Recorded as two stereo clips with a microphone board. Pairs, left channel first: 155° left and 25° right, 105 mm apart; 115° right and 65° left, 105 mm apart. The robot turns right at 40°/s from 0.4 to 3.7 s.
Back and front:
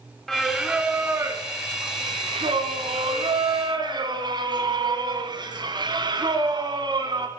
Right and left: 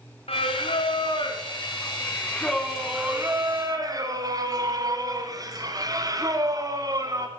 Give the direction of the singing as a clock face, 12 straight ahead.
4 o'clock.